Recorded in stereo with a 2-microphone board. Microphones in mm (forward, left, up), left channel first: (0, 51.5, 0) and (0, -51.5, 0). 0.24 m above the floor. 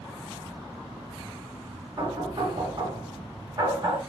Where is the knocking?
45° right (ahead or behind), 1.9 m.